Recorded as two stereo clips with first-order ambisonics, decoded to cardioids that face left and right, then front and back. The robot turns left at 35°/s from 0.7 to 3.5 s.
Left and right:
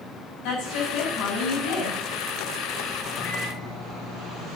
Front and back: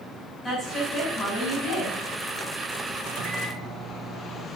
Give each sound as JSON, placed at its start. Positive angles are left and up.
{"t": 0.4, "sound": "a woman speaking", "azimuth_deg": 75, "distance_m": 6.0}
{"t": 3.1, "sound": "a microwave", "azimuth_deg": 165, "distance_m": 1.7}